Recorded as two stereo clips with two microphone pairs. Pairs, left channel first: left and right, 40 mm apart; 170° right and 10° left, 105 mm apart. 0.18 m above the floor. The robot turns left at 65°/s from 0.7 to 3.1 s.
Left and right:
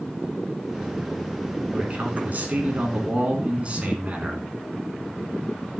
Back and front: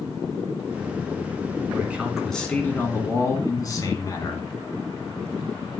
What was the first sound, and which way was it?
A man speaking, 45° right.